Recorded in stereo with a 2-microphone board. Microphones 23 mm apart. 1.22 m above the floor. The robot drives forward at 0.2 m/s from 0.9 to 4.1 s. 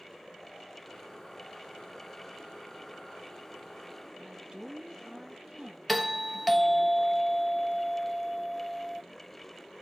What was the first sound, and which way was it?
A woman speaking, 35° right (ahead or behind).